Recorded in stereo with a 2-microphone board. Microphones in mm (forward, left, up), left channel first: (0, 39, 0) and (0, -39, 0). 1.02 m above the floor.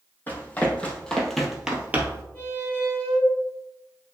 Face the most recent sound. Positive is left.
turn(degrees=20)  # may be behind; listen again after turning